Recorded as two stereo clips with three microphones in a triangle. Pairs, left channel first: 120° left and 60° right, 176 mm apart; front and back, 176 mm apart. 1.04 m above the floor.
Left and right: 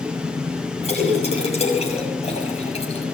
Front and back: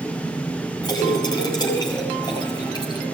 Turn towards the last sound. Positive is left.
turn(degrees=65)